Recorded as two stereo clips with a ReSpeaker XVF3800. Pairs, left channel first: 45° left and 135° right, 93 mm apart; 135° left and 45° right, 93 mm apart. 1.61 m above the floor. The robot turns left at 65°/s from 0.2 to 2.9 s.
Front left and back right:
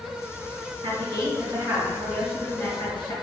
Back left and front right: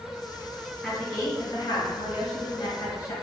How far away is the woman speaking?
About 1.6 m.